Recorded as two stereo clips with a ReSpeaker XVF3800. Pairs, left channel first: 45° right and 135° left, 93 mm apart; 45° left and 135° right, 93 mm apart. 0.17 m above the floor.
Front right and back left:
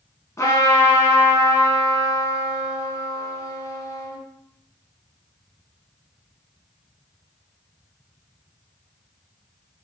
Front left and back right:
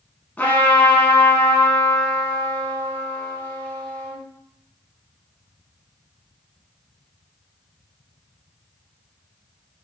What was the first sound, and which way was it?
A trumpet, 15° right.